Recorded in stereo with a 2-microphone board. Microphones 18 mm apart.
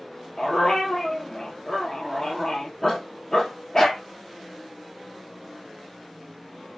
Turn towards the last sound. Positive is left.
turn(degrees=35)  # may be behind; listen again after turning